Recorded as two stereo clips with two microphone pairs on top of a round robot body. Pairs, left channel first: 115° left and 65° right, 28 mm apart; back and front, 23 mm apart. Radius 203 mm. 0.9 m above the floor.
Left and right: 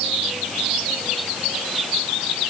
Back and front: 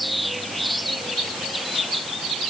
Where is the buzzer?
I don't hear a buzzer.